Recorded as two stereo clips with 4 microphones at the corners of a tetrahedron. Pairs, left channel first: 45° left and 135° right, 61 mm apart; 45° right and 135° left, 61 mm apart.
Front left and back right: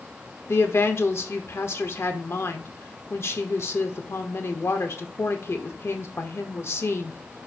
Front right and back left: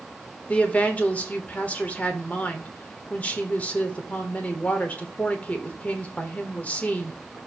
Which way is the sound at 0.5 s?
15° left.